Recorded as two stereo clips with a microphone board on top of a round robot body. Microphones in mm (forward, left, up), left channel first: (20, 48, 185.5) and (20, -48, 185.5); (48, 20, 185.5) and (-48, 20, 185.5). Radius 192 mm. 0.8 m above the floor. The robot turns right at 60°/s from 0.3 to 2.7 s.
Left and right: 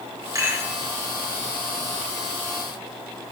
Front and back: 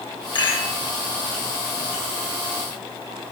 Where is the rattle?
35° right, 3.5 m; by 0.7 s 10° right, 3.5 m.